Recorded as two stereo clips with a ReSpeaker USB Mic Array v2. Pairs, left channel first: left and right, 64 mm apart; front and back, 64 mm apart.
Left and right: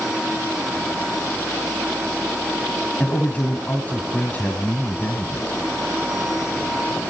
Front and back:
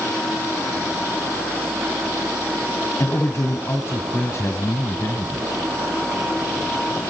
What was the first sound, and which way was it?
A man speaking, 30° left.